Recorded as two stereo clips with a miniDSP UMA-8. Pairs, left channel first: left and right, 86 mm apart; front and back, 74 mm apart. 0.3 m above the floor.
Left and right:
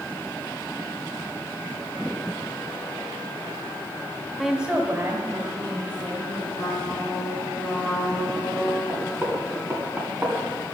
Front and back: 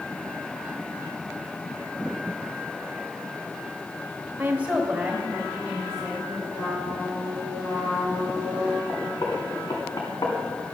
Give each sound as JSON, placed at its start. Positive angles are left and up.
{"t": 4.4, "sound": "a woman speaking", "azimuth_deg": 170, "distance_m": 1.0}
{"t": 6.5, "sound": "a trumpet", "azimuth_deg": 0, "distance_m": 5.0}
{"t": 8.9, "sound": "knocking", "azimuth_deg": -20, "distance_m": 2.5}